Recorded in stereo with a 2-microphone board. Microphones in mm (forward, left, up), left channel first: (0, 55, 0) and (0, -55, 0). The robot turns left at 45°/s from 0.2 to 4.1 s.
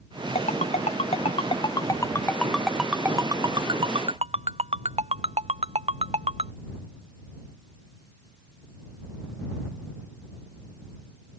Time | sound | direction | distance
0.3 | a ringtone | 75° left (ahead or behind) | ?